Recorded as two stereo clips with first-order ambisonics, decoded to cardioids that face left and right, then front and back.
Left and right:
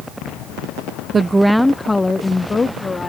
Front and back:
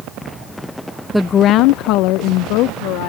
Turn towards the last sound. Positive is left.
turn(degrees=15)